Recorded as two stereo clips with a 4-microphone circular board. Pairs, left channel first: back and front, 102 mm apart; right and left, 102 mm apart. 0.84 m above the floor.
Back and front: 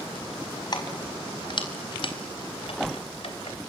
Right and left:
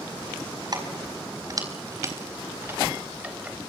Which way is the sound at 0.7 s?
135° left.